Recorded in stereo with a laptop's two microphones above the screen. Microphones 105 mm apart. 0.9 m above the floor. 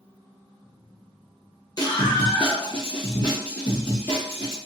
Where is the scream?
40° left (ahead or behind), 0.8 m; by 4.6 s 25° left (ahead or behind), 1.9 m.